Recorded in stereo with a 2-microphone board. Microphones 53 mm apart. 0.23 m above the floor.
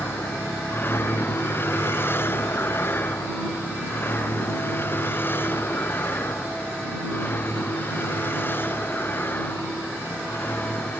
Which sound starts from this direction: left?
A vehicle, at 0.0 s.